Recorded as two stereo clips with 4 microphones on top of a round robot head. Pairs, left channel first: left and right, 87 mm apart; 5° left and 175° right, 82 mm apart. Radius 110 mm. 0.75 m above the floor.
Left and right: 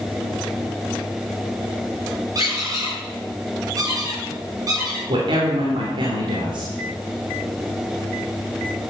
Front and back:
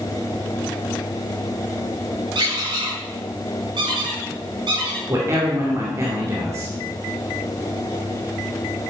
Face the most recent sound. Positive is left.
turn(degrees=-120)